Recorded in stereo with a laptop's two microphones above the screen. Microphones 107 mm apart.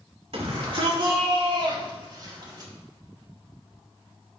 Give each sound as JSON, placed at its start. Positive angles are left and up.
{"t": 0.3, "sound": "a shout", "side_deg": -65, "distance_m": 3.0}